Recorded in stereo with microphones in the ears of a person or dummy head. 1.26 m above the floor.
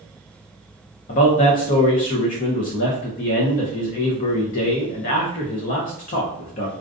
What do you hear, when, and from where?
1.1 s a man speaking: 45° left (ahead or behind), 0.6 m